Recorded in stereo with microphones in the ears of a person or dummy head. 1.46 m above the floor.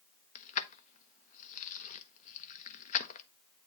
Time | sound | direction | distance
0.3 | keys jangling | 45° left (ahead or behind) | 0.9 m